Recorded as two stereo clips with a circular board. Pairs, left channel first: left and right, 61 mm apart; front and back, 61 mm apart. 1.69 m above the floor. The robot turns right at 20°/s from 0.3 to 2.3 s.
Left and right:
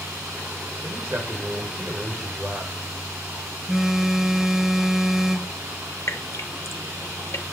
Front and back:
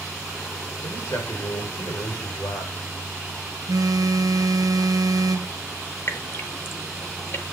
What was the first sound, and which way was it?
A man speaking, 45° right.